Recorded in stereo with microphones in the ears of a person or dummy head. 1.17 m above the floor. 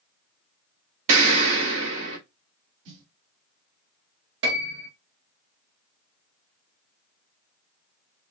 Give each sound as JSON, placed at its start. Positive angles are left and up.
{"t": 1.1, "sound": "an explosion", "side_deg": -70, "distance_m": 2.5}
{"t": 2.9, "sound": "a snare drum", "side_deg": -70, "distance_m": 2.0}
{"t": 4.4, "sound": "a piano", "side_deg": -65, "distance_m": 1.5}